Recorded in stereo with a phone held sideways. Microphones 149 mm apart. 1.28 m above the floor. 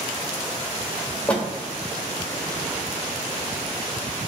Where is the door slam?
10° left (ahead or behind), 1.3 m.